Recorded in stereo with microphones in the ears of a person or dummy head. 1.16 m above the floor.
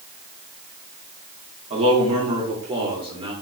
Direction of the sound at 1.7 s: 30° right (ahead or behind).